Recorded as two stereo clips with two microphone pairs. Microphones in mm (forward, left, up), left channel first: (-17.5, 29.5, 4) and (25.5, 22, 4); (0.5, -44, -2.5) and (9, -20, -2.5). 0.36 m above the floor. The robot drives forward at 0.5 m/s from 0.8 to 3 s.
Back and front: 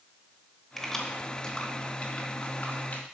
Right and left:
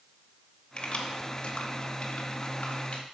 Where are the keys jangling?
105° right, 1.1 m; by 3.0 s 150° right, 1.7 m.